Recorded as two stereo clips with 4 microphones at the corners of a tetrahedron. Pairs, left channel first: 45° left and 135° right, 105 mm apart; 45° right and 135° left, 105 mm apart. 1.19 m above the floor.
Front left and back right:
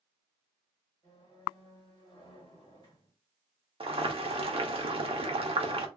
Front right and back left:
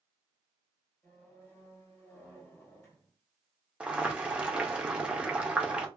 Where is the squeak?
15° left, 1.4 m.